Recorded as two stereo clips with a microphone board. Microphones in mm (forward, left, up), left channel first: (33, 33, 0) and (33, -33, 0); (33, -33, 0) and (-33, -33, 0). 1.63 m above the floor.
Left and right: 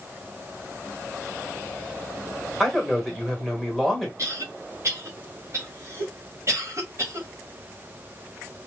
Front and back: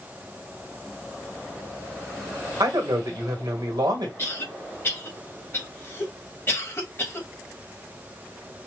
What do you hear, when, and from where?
2.6 s a man speaking: 175° left, 1.4 m
4.2 s a cough: 50° right, 1.7 m